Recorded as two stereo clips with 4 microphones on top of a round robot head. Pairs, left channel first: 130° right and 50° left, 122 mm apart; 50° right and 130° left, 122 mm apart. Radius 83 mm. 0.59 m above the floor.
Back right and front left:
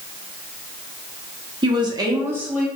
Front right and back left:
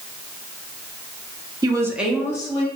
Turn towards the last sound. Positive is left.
turn(degrees=-35)